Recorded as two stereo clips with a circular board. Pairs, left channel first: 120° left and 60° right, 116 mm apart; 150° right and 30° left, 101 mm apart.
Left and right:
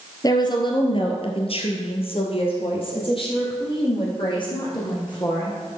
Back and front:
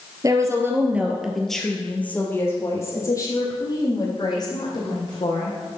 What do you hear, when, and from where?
0.2 s a woman speaking: 75° left, 1.7 m; by 5.6 s 170° left, 5 m